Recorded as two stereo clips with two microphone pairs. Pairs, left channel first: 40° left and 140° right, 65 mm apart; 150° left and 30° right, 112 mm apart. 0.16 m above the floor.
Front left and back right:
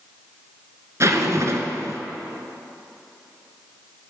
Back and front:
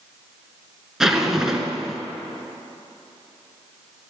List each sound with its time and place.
1.0 s a zipper: 115° right, 2 m